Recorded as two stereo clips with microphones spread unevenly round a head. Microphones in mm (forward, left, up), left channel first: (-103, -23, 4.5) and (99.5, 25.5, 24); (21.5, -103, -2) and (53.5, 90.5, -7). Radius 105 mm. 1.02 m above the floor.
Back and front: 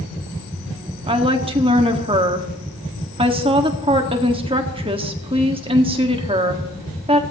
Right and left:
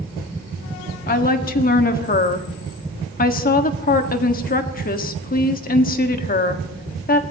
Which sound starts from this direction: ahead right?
A woman speaking, at 1.1 s.